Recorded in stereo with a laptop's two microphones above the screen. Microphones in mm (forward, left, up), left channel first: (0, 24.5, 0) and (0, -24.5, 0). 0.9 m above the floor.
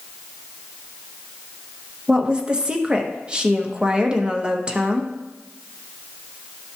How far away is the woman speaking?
About 0.8 m.